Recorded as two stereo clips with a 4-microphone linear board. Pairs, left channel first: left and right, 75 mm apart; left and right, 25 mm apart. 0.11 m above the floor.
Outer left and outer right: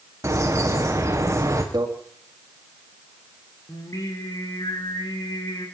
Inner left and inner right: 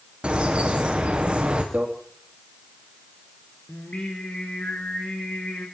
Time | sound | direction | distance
0.2 | a bird | 40° right (ahead or behind) | 3.5 m
1.7 | a microwave | 60° right (ahead or behind) | 4.5 m
3.7 | singing | 50° left (ahead or behind) | 5.5 m